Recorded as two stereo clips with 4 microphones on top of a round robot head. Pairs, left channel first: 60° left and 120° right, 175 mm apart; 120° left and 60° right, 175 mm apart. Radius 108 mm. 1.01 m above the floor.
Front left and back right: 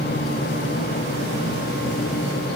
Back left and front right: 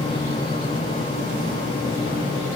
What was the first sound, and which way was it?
Only background noise.